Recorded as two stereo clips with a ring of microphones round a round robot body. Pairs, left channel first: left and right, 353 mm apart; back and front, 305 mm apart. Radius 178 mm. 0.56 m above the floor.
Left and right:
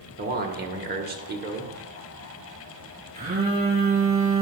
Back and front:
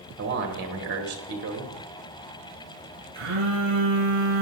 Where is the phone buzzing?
25° right, 4.5 m.